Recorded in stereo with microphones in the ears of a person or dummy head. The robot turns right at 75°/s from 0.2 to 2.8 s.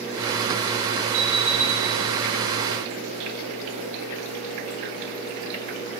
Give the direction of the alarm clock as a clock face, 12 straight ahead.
5 o'clock.